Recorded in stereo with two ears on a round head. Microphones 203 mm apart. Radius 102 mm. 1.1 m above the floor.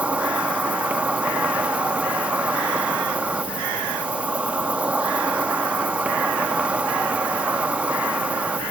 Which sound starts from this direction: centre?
An insect, at 0.0 s.